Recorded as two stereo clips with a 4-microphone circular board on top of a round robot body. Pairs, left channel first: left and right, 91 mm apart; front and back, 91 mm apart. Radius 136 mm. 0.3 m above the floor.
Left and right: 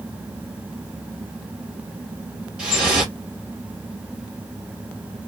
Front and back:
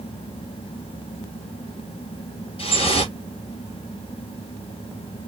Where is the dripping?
10° right, 2.5 m.